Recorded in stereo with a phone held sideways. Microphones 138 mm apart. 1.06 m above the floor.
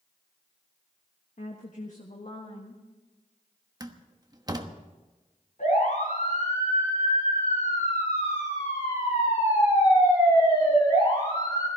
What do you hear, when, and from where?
1.4 s a woman speaking: 65° left (ahead or behind), 1.3 m; by 2.8 s 50° left (ahead or behind), 1.9 m
3.8 s a door slam: 25° right (ahead or behind), 1.1 m
5.6 s a siren: 60° left (ahead or behind), 8 m; by 11.7 s 30° left (ahead or behind), 9.5 m